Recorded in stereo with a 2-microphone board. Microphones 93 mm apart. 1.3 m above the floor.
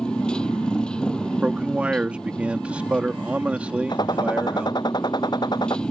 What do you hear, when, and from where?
0.0 s a motorcycle: 10° left (ahead or behind)
1.4 s a man speaking: 15° right (ahead or behind)
3.9 s a gunshot: 50° left (ahead or behind)